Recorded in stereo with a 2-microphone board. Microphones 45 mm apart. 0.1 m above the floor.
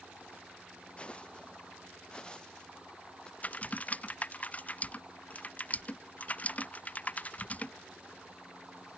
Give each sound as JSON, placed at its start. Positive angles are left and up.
{"t": 1.0, "sound": "footsteps", "side_deg": 25}
{"t": 3.4, "sound": "typing on a keyboard", "side_deg": 35}